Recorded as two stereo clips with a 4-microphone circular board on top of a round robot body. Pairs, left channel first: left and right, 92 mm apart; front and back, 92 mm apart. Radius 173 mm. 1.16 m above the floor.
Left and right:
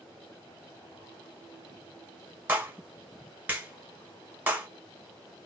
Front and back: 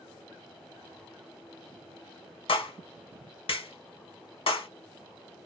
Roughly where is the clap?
Ahead.